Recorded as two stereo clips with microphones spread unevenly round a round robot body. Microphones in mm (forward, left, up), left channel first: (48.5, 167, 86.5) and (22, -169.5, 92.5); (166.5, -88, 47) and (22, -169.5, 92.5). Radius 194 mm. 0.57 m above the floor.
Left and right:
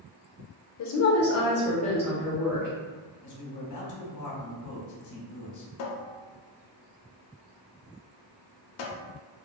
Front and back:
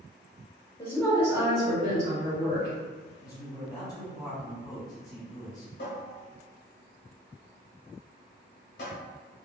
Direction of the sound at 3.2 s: 80° left.